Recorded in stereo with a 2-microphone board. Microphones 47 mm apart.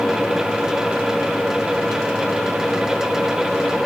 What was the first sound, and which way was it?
Only background noise.